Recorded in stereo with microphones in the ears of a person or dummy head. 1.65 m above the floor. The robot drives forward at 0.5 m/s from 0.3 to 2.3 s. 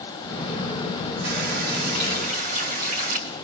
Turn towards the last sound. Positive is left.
turn(degrees=-50)  # may be behind; listen again after turning